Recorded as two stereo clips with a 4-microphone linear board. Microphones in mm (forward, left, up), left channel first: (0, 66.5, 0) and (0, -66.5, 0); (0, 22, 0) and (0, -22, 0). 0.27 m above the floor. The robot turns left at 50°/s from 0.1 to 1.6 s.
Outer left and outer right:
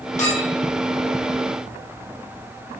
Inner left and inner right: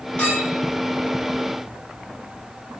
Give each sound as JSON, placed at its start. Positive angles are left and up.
{"t": 0.2, "sound": "a clink", "side_deg": 20, "distance_m": 5.5}